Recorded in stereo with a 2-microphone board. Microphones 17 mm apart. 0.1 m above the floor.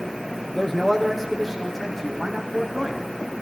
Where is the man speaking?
Centre (ahead or behind), 3.5 m; by 3.1 s 10° left (ahead or behind), 6.5 m.